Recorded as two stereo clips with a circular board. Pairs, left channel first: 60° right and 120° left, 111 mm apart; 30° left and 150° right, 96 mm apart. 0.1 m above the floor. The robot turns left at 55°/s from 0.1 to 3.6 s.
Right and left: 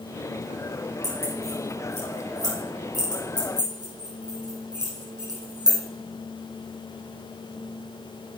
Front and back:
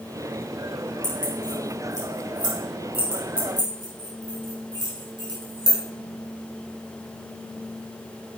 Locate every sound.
1.0 s keys jangling: 45° right, 3 m; by 5.8 s 175° left, 3 m